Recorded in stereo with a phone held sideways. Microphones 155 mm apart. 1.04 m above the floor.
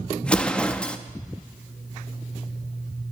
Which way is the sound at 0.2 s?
5° left (ahead or behind).